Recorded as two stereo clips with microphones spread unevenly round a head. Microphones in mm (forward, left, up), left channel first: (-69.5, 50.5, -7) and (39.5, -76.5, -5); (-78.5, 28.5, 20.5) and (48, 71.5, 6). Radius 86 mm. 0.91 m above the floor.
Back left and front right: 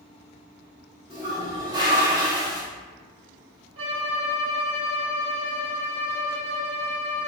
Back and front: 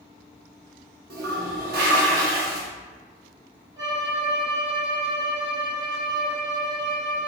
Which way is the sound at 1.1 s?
20° left.